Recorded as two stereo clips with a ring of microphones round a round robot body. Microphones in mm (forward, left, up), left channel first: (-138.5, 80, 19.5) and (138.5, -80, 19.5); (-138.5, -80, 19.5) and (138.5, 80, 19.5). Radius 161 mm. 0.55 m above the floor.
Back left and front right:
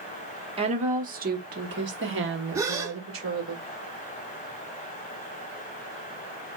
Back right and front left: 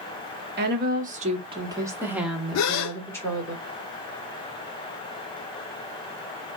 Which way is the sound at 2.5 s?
110° right.